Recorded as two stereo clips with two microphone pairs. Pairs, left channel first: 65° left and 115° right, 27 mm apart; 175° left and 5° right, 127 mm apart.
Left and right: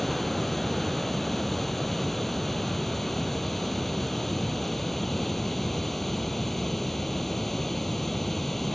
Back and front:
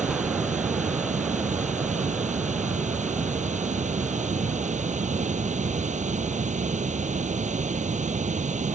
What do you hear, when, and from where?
0.0 s running water: 15° right